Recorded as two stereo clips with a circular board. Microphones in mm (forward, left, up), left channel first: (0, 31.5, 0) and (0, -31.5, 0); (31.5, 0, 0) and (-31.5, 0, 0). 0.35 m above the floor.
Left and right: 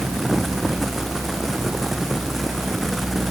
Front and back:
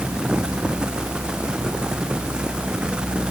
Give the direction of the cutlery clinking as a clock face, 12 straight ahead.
I don't hear cutlery clinking.